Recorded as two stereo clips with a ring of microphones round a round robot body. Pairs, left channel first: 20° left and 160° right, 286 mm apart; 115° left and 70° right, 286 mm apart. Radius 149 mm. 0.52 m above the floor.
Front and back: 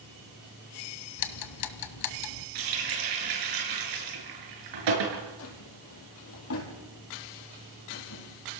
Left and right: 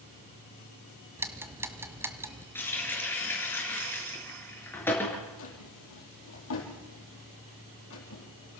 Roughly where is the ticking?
Ahead.